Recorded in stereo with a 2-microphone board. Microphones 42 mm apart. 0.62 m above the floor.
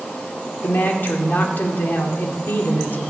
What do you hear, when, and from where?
0.6 s a woman speaking: 50° left (ahead or behind), 2.0 m